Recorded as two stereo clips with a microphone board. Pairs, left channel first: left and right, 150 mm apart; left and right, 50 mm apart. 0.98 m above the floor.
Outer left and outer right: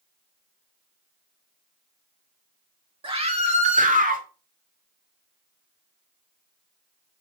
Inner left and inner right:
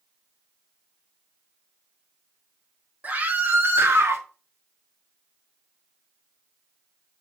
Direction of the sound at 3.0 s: 40° right (ahead or behind).